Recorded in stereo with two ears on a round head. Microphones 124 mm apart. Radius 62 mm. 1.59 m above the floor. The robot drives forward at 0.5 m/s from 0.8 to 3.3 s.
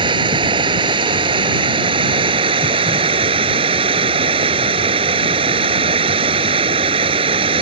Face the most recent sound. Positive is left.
turn(degrees=-40)  # may be behind; listen again after turning